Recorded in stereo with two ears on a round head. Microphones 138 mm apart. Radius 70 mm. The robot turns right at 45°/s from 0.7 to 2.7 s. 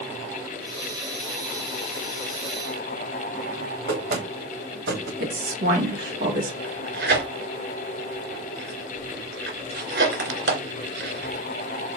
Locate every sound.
3.9 s knocking: 85° right, 3 m
5.2 s a woman speaking: 65° right (ahead or behind), 2.5 m
6.6 s tearing paper: 75° right (ahead or behind), 3 m